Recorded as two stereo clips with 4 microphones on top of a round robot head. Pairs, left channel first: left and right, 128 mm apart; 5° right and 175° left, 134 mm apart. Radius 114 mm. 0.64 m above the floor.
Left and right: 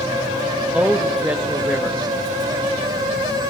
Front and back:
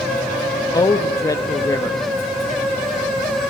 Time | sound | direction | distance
0.7 | a man speaking | 15° right | 0.7 m